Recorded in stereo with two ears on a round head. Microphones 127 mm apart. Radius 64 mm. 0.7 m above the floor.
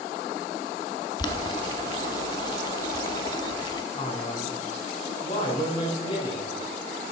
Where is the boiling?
30° left (ahead or behind), 0.7 m.